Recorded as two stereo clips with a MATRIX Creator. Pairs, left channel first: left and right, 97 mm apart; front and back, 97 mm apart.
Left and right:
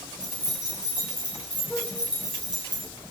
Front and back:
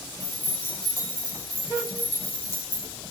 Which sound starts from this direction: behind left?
Keys jangling, at 0.2 s.